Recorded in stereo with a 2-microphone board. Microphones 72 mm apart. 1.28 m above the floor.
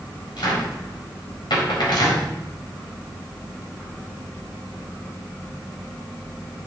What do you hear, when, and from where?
0.4 s a cupboard door: 75° left (ahead or behind), 4 m